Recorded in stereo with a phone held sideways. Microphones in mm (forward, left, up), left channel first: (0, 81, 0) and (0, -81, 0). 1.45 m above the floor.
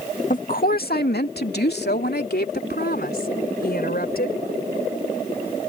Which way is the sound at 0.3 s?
55° left (ahead or behind).